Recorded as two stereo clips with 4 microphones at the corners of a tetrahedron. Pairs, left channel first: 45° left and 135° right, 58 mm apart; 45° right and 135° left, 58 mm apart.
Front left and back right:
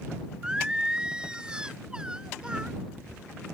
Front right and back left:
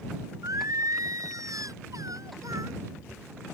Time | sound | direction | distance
0.4 | singing | 150° left | ?